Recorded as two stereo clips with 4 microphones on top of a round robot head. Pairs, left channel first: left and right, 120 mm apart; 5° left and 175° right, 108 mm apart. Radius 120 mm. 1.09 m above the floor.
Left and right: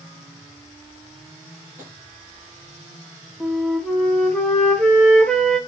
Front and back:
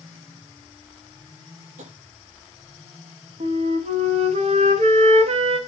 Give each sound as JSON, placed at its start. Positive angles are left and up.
{"t": 1.8, "sound": "tapping", "azimuth_deg": -165, "distance_m": 7.0}
{"t": 3.4, "sound": "a flute", "azimuth_deg": 175, "distance_m": 1.3}